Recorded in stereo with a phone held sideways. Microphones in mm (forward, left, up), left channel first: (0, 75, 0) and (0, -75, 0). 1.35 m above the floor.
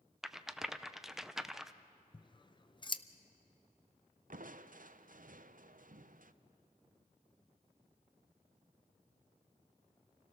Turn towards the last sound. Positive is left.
turn(degrees=-65)  # may be behind; listen again after turning